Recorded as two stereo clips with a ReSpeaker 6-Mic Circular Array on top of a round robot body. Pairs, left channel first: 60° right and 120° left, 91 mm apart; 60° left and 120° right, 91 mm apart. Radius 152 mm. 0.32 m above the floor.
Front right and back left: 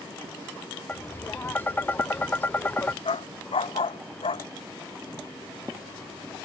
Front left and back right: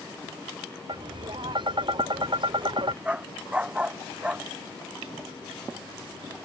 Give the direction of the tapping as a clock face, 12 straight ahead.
4 o'clock.